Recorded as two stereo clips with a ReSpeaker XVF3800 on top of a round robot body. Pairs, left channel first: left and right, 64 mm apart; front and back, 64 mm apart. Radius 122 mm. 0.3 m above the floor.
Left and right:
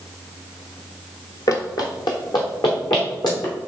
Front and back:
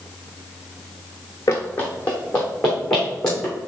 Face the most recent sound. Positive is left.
turn(degrees=80)